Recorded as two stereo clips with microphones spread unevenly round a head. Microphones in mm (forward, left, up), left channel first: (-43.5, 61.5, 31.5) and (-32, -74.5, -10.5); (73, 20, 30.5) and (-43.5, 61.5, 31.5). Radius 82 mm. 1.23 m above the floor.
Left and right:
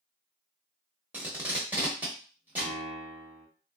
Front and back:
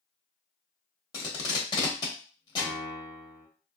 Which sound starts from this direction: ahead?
Tape being pulled, at 1.1 s.